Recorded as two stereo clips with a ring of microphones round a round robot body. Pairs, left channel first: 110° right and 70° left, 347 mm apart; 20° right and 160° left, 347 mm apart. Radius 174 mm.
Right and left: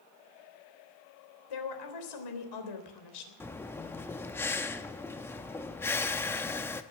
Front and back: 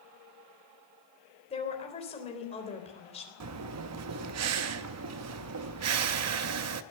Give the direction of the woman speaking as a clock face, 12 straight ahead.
3 o'clock.